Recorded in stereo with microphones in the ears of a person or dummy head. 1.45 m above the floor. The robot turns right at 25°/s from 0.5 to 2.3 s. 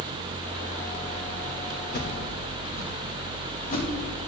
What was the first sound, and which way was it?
A whoosh, 45° left (ahead or behind).